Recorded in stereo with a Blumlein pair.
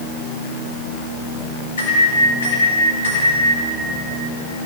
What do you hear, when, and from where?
1.8 s a microwave: 60° left, 1.7 m